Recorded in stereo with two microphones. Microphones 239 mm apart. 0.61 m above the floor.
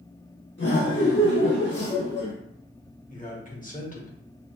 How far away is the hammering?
I don't hear hammering.